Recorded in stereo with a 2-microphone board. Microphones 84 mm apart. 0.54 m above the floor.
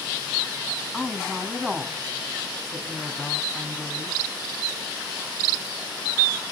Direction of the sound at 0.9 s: 5° right (ahead or behind).